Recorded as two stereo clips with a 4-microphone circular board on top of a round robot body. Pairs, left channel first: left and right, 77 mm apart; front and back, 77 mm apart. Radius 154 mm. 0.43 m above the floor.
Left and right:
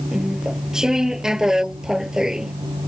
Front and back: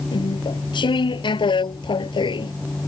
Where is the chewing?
5° right.